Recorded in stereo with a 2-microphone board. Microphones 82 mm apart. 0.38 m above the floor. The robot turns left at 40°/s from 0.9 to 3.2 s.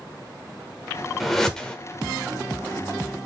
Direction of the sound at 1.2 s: Centre (ahead or behind).